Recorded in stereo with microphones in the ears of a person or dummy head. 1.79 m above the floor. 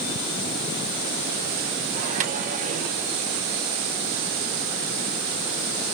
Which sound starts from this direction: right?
A microwave, at 1.9 s.